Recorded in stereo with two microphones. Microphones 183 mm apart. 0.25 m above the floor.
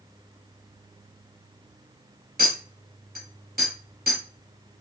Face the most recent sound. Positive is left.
turn(degrees=-65)  # may be behind; listen again after turning